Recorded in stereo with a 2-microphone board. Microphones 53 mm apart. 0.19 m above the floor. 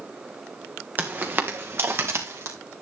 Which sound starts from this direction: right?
Footsteps, at 1.0 s.